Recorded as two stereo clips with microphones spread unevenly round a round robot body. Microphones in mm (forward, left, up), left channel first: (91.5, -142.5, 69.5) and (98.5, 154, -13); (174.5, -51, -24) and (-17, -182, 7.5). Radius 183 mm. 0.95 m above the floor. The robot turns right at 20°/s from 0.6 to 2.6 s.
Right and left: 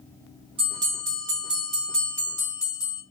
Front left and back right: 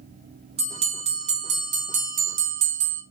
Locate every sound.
0.6 s a bell: 175° left, 0.5 m; by 3.0 s 145° right, 0.5 m